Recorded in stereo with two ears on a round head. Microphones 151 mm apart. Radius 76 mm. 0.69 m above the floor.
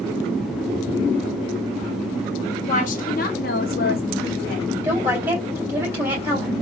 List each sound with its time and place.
2.7 s a woman speaking: 45° left (ahead or behind), 0.8 m; by 4.7 s 55° left (ahead or behind), 1.4 m
4.8 s a woman speaking: 10° right (ahead or behind), 3 m